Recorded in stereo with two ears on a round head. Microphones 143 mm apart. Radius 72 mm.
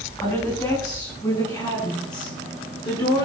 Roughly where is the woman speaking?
Centre.